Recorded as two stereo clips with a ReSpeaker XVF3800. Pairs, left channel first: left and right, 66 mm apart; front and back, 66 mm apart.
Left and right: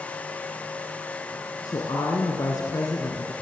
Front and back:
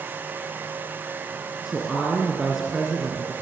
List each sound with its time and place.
1.6 s a woman speaking: 95° left, 2.5 m